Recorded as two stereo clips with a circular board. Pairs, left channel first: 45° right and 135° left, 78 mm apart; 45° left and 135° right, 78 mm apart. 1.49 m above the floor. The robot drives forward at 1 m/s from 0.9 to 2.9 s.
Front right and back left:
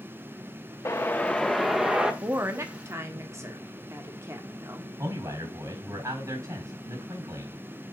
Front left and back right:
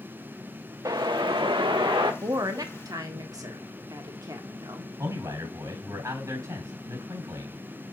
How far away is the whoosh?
About 0.9 m.